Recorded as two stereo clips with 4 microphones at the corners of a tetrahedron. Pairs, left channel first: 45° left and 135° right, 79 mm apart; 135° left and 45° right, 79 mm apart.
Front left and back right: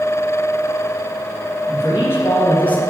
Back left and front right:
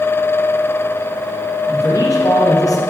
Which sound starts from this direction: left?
A man speaking, at 1.7 s.